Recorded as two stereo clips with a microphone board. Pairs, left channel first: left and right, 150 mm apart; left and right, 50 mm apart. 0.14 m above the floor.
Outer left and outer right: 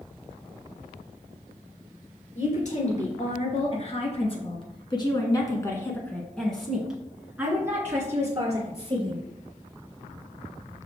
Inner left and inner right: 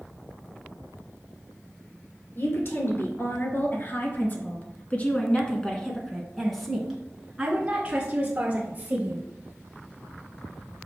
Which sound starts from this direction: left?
A woman speaking, at 2.4 s.